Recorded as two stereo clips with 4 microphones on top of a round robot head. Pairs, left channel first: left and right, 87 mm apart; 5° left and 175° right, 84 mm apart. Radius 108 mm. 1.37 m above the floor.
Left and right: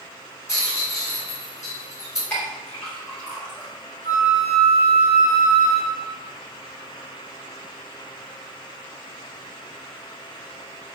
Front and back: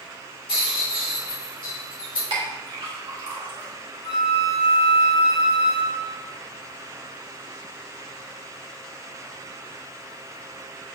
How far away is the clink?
About 3 m.